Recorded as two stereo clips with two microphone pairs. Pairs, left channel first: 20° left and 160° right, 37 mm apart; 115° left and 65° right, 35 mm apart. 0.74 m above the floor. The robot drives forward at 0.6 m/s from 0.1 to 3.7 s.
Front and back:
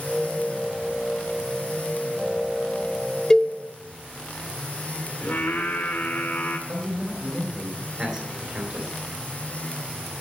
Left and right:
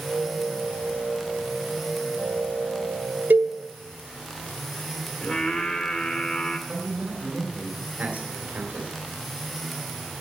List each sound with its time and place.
3.3 s a cowbell: 55° right, 0.9 m; by 3.5 s 65° right, 0.8 m
5.2 s singing: 60° left, 2 m
6.7 s a man speaking: 120° right, 3 m